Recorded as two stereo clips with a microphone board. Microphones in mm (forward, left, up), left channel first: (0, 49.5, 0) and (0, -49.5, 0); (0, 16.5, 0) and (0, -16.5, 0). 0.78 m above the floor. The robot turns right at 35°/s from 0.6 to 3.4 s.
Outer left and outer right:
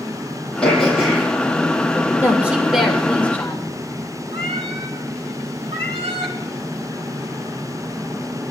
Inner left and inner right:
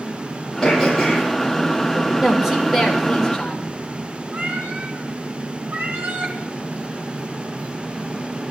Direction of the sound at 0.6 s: 10° left (ahead or behind).